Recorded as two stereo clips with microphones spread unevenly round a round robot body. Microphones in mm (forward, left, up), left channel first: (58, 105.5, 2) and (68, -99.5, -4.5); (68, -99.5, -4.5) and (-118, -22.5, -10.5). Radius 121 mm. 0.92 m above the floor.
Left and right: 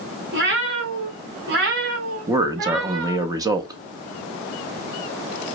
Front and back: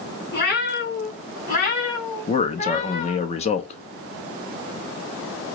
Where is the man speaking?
40° right, 0.8 m.